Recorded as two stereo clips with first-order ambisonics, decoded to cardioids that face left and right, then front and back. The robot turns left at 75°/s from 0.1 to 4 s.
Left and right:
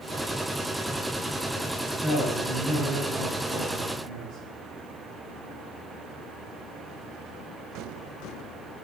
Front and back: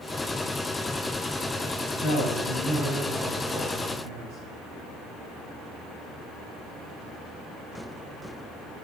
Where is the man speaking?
10° left, 4 m; by 4.4 s 150° right, 4 m.